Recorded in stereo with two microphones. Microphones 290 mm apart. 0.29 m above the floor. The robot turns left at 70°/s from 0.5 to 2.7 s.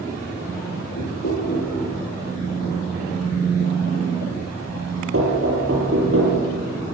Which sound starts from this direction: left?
Knocking, at 1.0 s.